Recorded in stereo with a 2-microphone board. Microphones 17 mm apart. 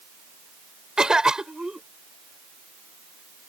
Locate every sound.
1.0 s a cough: 50° right (ahead or behind)